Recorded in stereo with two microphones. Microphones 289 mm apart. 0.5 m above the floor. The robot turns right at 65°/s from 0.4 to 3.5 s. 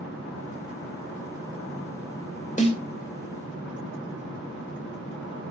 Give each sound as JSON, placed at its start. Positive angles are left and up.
{"t": 2.6, "sound": "a snare drum", "side_deg": 25, "distance_m": 1.8}